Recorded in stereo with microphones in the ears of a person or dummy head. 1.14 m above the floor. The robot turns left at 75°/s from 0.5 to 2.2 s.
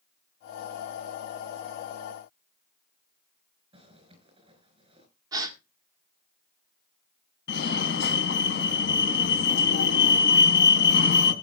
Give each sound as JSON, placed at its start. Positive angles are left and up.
{"t": 3.7, "sound": "a zipper", "side_deg": -35, "distance_m": 5.0}
{"t": 5.3, "sound": "a gasp", "side_deg": -20, "distance_m": 2.0}
{"t": 7.5, "sound": "a fire alarm", "side_deg": 55, "distance_m": 2.5}